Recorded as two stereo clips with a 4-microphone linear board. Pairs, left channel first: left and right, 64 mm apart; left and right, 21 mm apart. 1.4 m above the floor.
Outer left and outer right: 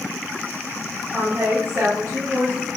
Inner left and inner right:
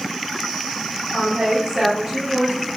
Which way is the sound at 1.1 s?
35° right (ahead or behind).